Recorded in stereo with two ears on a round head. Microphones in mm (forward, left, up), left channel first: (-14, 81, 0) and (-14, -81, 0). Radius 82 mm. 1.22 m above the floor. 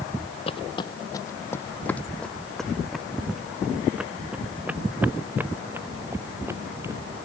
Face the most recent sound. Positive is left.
turn(degrees=-15)  # may be behind; listen again after turning